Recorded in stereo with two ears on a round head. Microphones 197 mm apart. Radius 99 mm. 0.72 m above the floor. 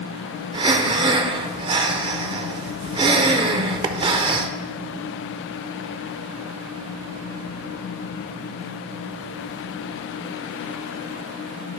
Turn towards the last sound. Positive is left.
turn(degrees=-20)  # may be behind; listen again after turning